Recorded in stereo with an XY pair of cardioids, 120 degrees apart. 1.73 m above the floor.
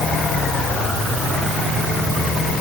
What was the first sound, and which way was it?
Only background noise.